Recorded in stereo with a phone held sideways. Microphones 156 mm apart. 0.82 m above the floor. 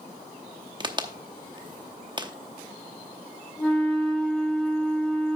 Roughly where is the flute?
Centre.